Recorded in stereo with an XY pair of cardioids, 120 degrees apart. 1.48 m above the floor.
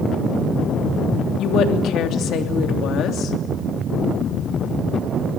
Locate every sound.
1.4 s a woman speaking: 65° left, 3 m